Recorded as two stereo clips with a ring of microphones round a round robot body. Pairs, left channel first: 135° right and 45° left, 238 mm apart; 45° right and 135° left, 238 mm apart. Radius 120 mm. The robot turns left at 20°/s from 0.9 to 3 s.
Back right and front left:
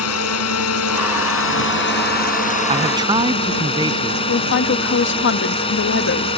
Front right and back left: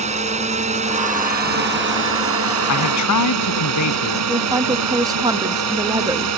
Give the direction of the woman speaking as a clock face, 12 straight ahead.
5 o'clock.